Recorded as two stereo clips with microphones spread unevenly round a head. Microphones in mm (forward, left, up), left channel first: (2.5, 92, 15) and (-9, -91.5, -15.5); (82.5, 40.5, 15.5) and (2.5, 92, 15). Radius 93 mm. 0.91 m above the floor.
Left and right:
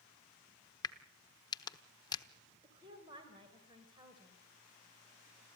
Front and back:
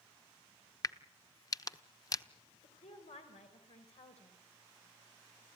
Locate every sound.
0.8 s a crack: 20° left, 1.0 m
2.6 s a woman speaking: 25° right, 3.5 m